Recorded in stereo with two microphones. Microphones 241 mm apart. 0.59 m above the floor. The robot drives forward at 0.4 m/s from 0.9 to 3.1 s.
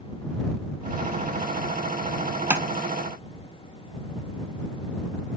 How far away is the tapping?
About 0.6 m.